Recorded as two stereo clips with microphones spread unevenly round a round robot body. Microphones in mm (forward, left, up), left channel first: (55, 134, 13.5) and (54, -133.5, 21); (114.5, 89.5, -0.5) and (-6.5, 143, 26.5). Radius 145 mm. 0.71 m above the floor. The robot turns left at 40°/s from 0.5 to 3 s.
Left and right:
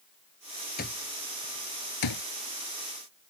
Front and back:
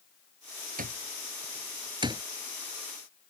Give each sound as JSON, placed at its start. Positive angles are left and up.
{"t": 0.8, "sound": "an alarm clock", "azimuth_deg": 155}